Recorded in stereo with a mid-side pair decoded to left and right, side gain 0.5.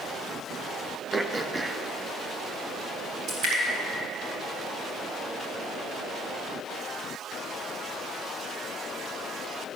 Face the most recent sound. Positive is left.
turn(degrees=-65)